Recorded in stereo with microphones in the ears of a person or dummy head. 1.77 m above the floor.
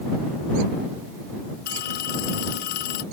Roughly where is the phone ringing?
Left.